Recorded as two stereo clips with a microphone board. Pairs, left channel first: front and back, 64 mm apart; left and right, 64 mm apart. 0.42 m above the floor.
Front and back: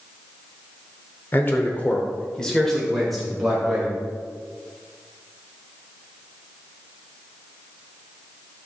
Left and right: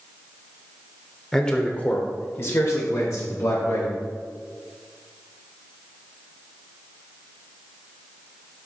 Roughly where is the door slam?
No door slam in this recording.